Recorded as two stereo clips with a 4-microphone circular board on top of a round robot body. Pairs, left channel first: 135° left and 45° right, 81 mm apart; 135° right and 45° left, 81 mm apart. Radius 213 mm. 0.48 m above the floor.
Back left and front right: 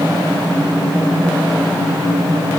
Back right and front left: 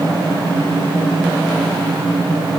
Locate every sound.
Only background noise.